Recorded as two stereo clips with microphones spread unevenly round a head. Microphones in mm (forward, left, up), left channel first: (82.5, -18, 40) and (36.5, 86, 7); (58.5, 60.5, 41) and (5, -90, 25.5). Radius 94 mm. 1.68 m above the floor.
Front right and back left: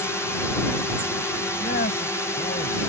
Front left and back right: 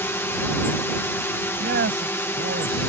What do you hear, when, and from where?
0.0 s a drone: 5° left
1.6 s a man speaking: 85° right